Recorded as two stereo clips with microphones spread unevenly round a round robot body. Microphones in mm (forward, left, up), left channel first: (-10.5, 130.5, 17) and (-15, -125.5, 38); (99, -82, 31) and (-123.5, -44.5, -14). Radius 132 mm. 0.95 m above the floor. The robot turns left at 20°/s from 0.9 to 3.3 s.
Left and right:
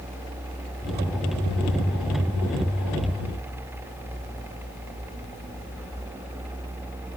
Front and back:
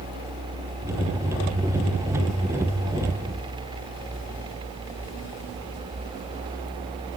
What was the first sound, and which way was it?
Only background noise.